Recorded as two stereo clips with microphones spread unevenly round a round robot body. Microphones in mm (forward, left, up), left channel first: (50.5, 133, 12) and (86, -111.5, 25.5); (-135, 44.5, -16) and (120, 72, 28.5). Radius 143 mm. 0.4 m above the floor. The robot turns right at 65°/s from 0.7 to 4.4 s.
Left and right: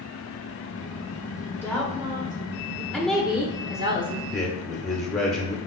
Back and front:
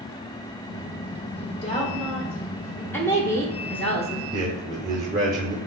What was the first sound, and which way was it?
A woman speaking, 170° left.